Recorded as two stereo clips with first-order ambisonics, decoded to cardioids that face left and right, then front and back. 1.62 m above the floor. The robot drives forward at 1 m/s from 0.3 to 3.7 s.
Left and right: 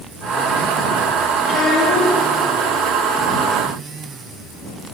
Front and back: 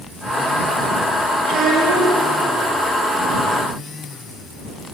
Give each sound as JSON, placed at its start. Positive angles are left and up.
{"t": 1.4, "sound": "a child speaking", "azimuth_deg": 125, "distance_m": 3.5}